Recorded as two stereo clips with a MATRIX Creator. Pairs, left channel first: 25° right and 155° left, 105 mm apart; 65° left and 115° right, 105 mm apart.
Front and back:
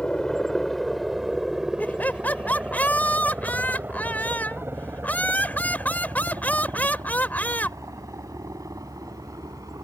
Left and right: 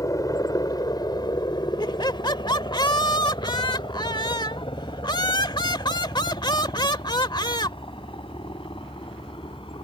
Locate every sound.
0.0 s a helicopter: 55° left; by 9.8 s 100° left
1.8 s laughter: 45° left